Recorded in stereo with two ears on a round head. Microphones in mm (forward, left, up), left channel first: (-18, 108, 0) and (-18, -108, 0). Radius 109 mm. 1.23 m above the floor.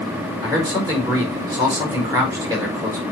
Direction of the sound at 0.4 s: 15° right (ahead or behind).